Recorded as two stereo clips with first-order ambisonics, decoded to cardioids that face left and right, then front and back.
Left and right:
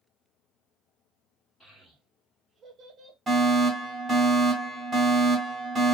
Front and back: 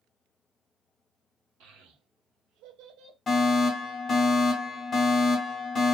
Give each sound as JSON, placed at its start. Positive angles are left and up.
{"t": 1.6, "sound": "a child speaking", "azimuth_deg": 170, "distance_m": 1.8}
{"t": 3.3, "sound": "a fire alarm", "azimuth_deg": -25, "distance_m": 1.7}